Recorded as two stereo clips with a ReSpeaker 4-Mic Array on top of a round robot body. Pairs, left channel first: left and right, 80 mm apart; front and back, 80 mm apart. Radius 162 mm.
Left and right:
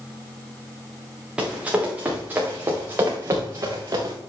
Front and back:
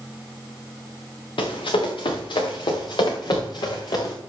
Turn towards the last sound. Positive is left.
turn(degrees=-40)